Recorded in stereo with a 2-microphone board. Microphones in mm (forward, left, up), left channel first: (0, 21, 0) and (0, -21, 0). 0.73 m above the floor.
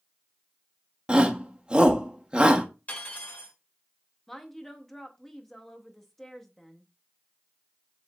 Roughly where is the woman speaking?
Centre.